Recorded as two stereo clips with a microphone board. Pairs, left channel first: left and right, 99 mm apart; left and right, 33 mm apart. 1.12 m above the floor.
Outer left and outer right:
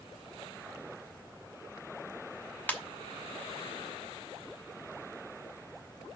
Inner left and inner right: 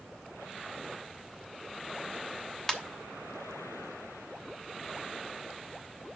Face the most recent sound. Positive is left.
turn(degrees=15)  # may be behind; listen again after turning